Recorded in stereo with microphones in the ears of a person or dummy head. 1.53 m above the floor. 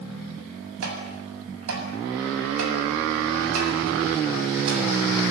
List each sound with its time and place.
0.8 s tapping: 85° right, 7.5 m